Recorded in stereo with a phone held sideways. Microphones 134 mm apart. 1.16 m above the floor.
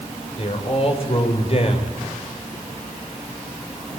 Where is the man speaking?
45° left (ahead or behind), 4.5 m.